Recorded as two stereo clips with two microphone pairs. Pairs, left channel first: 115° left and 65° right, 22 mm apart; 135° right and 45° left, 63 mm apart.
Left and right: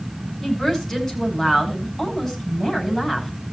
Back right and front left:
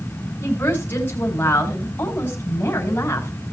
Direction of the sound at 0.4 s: 170° left.